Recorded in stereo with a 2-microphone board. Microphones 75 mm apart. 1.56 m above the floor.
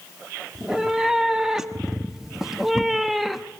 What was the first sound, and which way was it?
A cat meowing, 10° right (ahead or behind).